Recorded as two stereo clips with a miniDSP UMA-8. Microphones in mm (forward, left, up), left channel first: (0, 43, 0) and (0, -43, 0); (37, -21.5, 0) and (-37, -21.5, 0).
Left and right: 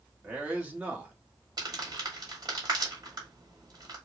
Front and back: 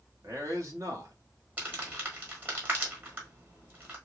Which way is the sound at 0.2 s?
155° right.